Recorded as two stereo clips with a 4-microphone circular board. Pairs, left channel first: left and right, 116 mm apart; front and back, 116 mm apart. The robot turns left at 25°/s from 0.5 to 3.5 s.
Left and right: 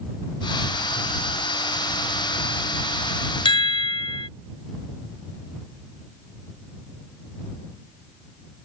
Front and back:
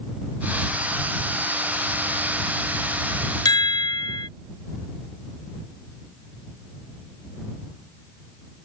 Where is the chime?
50° left.